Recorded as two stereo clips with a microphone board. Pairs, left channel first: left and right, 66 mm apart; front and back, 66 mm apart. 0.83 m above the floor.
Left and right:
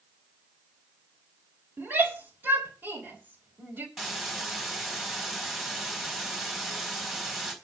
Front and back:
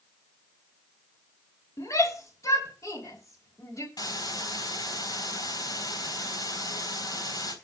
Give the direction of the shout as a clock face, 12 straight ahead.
1 o'clock.